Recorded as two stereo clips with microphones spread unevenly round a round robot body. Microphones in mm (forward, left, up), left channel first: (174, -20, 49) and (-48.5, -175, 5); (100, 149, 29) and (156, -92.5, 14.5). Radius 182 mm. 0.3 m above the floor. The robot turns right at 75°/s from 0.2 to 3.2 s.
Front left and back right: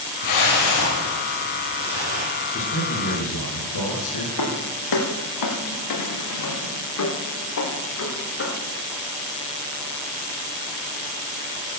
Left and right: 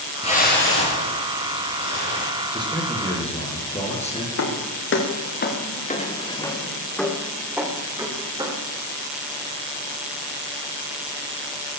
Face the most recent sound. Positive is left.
turn(degrees=-5)